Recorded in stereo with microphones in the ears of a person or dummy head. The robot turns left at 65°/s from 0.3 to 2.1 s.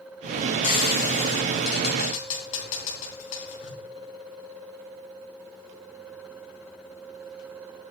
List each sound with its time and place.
0.6 s frying: 40° left (ahead or behind), 3.5 m